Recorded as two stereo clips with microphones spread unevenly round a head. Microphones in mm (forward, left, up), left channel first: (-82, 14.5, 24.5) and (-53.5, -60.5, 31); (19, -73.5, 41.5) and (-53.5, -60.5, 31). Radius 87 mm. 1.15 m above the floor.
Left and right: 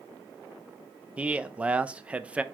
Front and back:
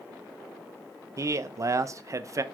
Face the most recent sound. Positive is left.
turn(degrees=-145)